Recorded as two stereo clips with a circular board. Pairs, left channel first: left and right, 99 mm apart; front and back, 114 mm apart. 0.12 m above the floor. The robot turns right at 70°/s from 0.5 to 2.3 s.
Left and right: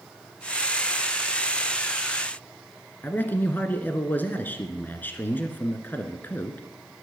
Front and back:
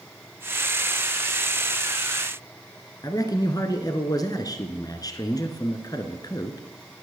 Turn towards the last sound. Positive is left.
turn(degrees=30)